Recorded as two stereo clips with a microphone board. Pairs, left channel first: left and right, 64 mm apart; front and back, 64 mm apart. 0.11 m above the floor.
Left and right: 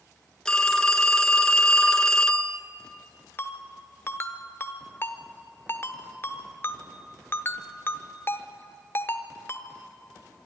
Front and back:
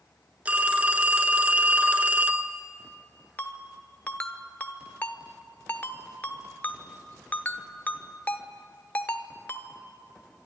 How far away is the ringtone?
About 0.9 m.